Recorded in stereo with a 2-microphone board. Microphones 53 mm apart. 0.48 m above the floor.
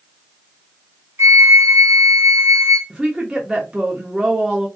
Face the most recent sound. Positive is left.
turn(degrees=-15)  # may be behind; listen again after turning